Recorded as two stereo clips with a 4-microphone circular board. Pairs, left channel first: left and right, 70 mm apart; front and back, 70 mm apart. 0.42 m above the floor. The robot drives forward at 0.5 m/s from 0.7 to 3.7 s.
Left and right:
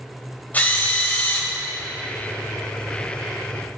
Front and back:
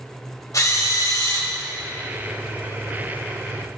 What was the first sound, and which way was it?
A drill, 30° left.